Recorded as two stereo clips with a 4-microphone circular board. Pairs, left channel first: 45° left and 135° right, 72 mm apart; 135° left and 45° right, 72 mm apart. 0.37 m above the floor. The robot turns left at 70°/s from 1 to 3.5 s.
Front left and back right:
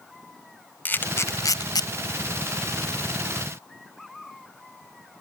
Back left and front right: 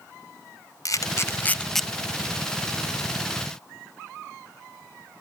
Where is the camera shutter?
105° left, 0.7 m; by 1.9 s 45° left, 0.7 m.